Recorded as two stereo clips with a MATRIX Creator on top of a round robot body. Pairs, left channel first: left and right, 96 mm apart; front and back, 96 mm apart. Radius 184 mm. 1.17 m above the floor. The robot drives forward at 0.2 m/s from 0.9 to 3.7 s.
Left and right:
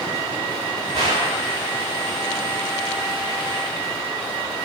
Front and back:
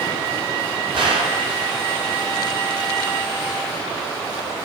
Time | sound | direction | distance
0.9 | a gunshot | 140° right | 3.5 m